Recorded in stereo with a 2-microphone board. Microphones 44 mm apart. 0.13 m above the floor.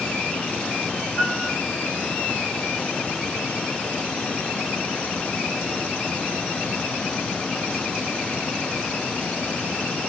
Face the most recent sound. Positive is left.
turn(degrees=15)  # may be behind; listen again after turning